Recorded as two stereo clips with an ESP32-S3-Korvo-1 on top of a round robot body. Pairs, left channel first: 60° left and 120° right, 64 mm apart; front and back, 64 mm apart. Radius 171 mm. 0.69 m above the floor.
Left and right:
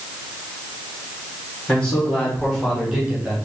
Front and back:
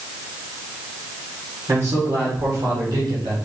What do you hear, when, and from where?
1.7 s a man speaking: 135° left, 2 m; by 3.4 s 175° left, 1.8 m